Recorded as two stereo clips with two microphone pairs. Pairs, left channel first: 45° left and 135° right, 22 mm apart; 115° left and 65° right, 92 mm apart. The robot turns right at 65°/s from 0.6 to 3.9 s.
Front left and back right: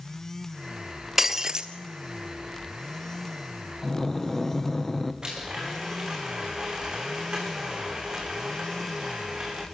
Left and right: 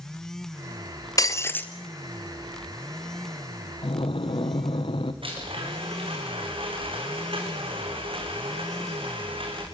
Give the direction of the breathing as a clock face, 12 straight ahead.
8 o'clock.